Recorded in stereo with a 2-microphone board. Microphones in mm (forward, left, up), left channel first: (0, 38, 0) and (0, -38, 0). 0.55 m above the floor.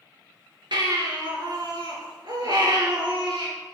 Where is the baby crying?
90° right, 3 m.